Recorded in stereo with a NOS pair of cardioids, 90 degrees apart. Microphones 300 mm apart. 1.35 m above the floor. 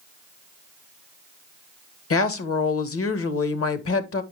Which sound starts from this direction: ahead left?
A woman speaking, at 2.1 s.